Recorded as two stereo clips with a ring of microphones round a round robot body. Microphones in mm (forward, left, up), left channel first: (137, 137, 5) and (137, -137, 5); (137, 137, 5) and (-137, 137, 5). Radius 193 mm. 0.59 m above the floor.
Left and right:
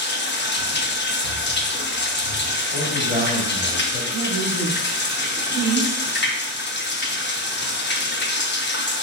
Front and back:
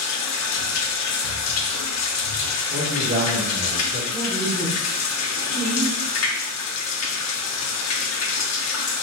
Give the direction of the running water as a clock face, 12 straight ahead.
11 o'clock.